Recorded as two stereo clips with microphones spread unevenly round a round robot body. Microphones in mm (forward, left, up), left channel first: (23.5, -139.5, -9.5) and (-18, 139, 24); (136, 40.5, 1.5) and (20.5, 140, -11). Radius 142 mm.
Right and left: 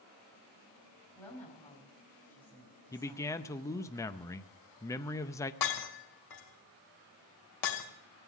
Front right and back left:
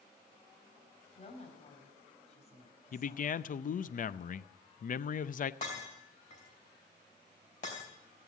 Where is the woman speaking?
5° left, 5 m.